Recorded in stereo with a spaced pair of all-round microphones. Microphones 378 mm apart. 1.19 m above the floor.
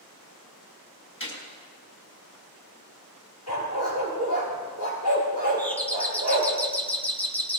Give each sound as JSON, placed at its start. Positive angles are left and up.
{"t": 1.2, "sound": "a gunshot", "side_deg": 30, "distance_m": 4.5}
{"t": 3.5, "sound": "a dog barking", "side_deg": 85, "distance_m": 5.5}
{"t": 5.6, "sound": "a doorbell", "side_deg": 5, "distance_m": 1.4}